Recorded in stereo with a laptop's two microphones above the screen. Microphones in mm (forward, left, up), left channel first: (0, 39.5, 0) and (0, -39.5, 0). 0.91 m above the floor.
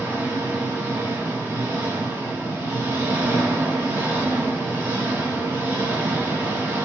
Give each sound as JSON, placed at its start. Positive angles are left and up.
{"t": 0.0, "sound": "an engine running", "side_deg": -30, "distance_m": 0.9}